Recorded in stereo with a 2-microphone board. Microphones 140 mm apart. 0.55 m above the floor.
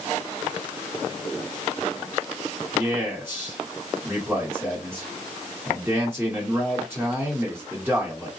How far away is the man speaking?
About 2 m.